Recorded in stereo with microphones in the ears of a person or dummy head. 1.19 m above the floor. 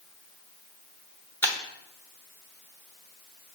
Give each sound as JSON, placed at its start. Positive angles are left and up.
{"t": 1.4, "sound": "breaking glass", "side_deg": 10, "distance_m": 1.0}